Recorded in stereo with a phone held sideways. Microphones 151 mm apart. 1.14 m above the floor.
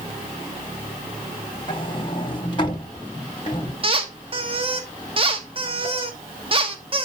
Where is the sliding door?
30° left (ahead or behind), 1.2 m.